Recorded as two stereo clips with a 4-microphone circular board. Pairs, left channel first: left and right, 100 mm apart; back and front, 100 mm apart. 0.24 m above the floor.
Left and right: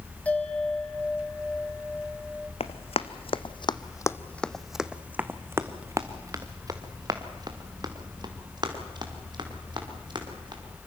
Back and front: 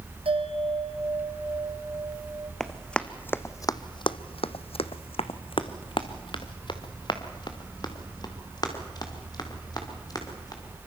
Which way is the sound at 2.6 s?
95° left.